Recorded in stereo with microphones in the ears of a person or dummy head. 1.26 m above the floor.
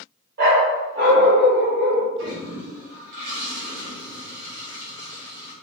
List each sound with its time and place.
0.4 s a dog barking: 60° right (ahead or behind), 1.5 m; by 2.1 s 70° right (ahead or behind), 2.5 m
2.2 s a toilet flushing: 75° right (ahead or behind), 1.8 m